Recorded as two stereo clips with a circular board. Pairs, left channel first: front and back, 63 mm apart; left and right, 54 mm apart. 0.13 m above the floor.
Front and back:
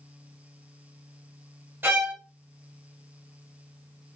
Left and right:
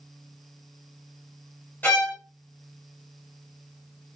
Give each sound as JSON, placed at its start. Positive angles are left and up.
{"t": 1.8, "sound": "a violin", "azimuth_deg": 130, "distance_m": 2.5}